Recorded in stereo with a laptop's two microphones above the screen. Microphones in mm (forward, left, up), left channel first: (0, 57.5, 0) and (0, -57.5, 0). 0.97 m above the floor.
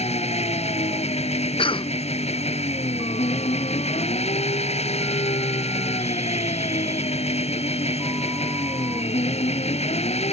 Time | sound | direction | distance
0.0 | an engine running | 70° left (ahead or behind) | ?
1.6 | a cough | 50° left (ahead or behind) | ?